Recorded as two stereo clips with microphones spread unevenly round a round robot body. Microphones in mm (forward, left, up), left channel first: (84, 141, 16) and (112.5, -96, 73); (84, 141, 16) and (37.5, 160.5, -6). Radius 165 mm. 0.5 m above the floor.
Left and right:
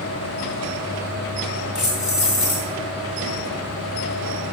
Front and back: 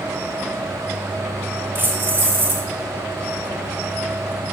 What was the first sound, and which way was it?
Keys jangling, straight behind.